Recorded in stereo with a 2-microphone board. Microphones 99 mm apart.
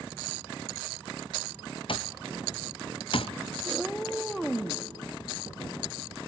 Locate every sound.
1.9 s an alarm clock: 60° left (ahead or behind), 0.5 m
3.6 s a cat meowing: centre (ahead or behind), 0.9 m